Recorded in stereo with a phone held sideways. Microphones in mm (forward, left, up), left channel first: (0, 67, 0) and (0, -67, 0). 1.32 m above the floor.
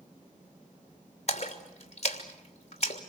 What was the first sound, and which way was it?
A splash, 50° left (ahead or behind).